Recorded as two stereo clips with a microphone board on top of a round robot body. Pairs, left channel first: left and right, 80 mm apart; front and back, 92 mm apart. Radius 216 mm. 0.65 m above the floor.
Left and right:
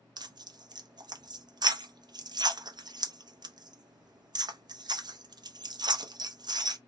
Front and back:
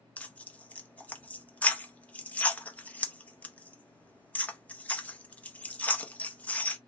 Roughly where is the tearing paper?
Right.